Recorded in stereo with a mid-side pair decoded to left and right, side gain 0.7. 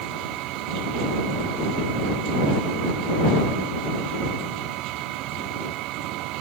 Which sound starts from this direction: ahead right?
A machine running, at 0.0 s.